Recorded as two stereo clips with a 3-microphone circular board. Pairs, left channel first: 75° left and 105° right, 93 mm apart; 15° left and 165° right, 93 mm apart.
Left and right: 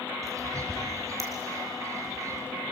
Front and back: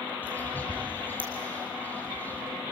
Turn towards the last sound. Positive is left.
turn(degrees=-55)